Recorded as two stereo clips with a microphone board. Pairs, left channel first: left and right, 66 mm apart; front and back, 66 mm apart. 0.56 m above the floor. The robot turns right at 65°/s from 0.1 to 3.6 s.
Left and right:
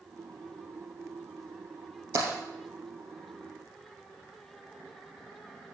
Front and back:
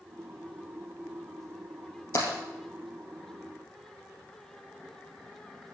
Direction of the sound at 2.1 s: 50° right.